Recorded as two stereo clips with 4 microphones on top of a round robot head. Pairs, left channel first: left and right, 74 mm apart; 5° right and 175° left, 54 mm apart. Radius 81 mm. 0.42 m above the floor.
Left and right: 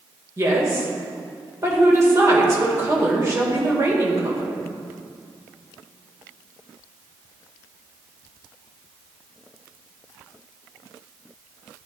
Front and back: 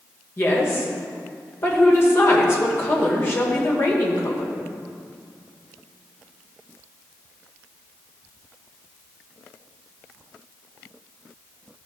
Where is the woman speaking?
45° right, 1.6 m.